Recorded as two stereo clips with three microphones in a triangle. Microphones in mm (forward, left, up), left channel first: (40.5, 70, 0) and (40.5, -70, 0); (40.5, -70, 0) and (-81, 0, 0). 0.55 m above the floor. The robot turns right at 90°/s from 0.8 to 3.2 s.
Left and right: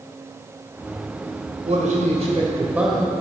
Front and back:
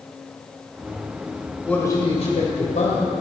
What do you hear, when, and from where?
1.6 s a man speaking: 115° right, 2.5 m; by 3.1 s 20° left, 2.5 m